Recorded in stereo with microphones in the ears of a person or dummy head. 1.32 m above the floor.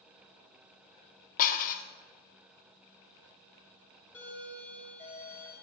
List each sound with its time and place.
1.4 s dishes clattering: 35° left (ahead or behind), 0.6 m
4.1 s a doorbell: 5° left (ahead or behind), 2.5 m